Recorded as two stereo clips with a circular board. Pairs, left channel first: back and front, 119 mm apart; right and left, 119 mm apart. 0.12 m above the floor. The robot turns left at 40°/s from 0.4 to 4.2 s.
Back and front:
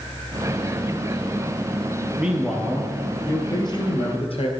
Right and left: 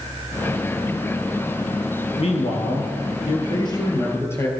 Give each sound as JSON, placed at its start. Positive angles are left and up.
{"t": 2.2, "sound": "a man speaking", "azimuth_deg": -75, "distance_m": 2.5}